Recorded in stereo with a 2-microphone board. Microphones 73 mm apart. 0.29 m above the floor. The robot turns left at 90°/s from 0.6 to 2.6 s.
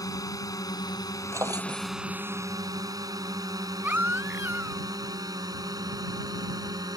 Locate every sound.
0.0 s a drone: 55° left (ahead or behind); by 7.0 s 60° right (ahead or behind)
1.3 s a drawer: 40° right; by 1.9 s 95° right
3.8 s a baby crying: 25° right (ahead or behind)